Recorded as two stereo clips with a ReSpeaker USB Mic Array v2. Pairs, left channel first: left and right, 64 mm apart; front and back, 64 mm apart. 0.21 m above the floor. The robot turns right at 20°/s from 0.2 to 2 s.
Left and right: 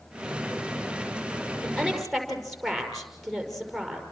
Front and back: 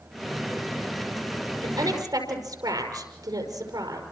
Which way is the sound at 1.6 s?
170° left.